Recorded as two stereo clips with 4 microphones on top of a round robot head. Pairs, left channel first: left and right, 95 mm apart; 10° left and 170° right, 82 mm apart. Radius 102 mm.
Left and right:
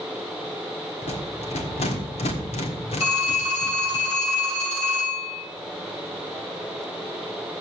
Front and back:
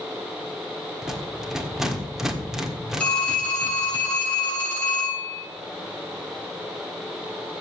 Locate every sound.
1.0 s a rattle: 105° left, 1.4 m
3.0 s a phone ringing: 85° left, 7 m